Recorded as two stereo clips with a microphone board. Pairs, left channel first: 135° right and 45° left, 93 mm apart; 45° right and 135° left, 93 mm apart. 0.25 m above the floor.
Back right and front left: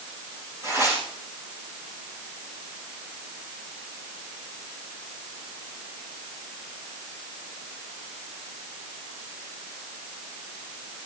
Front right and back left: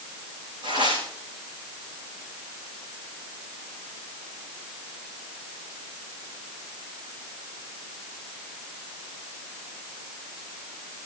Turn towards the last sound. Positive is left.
turn(degrees=100)